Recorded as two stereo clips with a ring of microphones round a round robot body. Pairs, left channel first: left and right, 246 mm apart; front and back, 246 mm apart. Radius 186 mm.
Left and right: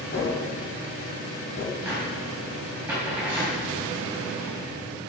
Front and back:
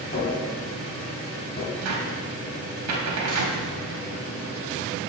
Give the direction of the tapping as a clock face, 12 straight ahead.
10 o'clock.